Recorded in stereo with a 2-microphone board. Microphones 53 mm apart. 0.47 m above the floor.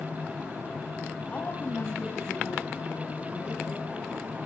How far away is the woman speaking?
About 2.5 m.